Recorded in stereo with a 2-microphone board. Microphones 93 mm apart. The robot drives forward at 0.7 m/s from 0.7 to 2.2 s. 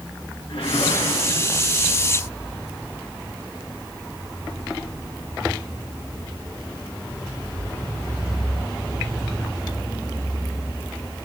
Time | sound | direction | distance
0.5 | a whoosh | 85° left | 6 m